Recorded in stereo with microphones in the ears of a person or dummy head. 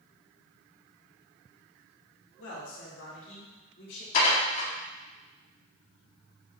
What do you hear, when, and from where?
2.4 s a man speaking: 85° left, 2 m; by 4.0 s 65° left (ahead or behind), 2.5 m
4.1 s dishes clattering: 50° left (ahead or behind), 2.0 m